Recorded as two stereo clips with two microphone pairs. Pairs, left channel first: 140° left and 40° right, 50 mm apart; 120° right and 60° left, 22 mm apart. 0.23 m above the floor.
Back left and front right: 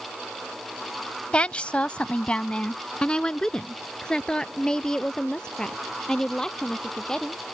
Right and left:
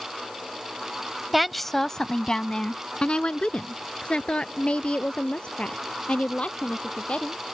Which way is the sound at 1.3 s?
130° left.